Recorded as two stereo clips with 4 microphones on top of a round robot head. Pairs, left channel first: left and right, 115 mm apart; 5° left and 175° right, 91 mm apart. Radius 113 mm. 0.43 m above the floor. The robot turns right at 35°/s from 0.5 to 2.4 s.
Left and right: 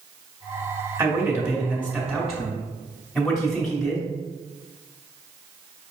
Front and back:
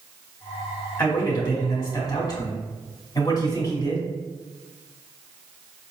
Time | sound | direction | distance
1.0 | a man speaking | 50° right | 1.6 m